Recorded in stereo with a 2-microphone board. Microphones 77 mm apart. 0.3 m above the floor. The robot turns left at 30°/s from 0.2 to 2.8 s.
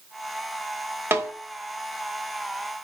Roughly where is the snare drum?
Right.